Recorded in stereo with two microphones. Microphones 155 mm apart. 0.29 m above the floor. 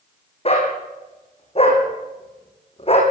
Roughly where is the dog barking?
Left.